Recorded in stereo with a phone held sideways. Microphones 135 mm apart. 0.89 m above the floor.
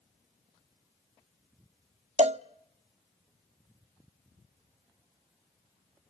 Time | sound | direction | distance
2.2 | a cowbell | 55° right (ahead or behind) | 0.7 m